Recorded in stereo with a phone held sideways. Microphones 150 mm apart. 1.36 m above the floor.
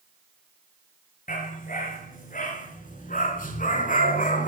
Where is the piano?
I don't hear a piano.